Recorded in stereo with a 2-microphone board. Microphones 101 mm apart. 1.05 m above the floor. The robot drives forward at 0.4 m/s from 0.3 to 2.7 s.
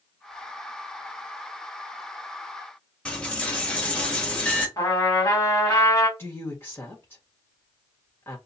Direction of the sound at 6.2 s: 20° left (ahead or behind).